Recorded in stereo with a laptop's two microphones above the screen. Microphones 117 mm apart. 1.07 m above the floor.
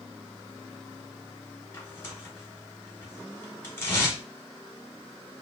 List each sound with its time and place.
1.7 s tearing paper: 20° left (ahead or behind), 1.2 m